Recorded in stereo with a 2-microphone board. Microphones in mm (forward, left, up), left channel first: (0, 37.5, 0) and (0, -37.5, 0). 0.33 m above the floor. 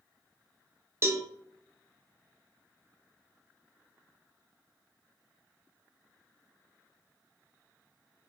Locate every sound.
1.0 s a cowbell: 35° right (ahead or behind), 0.5 m